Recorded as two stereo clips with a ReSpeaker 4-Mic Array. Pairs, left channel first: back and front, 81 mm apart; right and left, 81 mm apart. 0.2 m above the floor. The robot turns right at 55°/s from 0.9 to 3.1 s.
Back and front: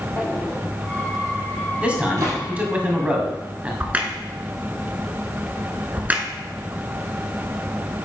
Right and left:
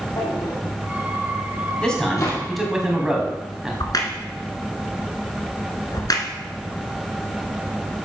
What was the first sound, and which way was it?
A drawer, 120° right.